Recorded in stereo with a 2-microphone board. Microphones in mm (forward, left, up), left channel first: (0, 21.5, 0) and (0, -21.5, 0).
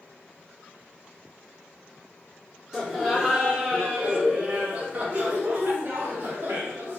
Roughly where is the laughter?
Centre.